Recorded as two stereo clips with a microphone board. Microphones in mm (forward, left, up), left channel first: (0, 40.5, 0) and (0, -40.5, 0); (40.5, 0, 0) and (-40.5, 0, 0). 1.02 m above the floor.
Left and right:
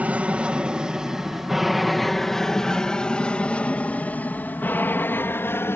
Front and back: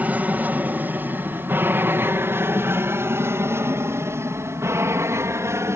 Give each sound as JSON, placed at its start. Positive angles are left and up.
{"t": 0.0, "sound": "an aircraft", "azimuth_deg": -140}